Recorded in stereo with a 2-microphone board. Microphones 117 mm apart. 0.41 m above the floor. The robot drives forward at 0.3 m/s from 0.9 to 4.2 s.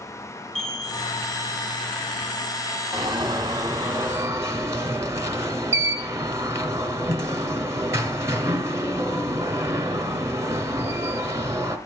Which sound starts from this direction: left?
A chime, at 0.6 s.